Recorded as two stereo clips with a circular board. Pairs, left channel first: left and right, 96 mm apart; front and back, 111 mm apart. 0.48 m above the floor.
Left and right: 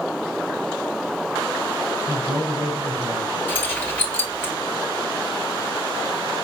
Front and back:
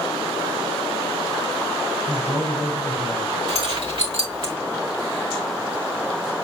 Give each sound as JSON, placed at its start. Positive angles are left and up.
{"t": 2.1, "sound": "a man speaking", "azimuth_deg": -110, "distance_m": 4.0}
{"t": 3.5, "sound": "keys jangling", "azimuth_deg": 155, "distance_m": 1.8}